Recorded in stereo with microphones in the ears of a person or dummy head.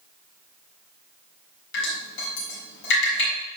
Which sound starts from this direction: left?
Dripping, at 1.7 s.